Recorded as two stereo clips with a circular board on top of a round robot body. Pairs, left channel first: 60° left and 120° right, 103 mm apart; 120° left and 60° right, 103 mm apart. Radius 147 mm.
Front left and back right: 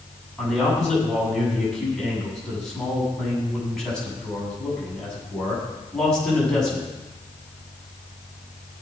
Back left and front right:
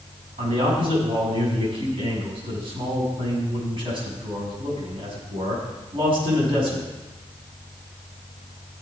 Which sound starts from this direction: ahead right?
A man speaking, at 0.4 s.